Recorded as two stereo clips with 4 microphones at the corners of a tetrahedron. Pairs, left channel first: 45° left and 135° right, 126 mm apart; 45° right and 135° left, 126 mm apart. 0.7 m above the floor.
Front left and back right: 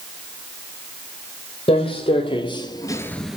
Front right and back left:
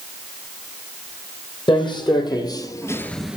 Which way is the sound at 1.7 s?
5° left.